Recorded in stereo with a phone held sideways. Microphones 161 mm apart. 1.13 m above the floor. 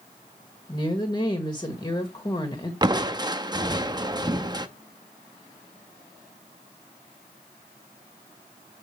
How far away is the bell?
No bell in this recording.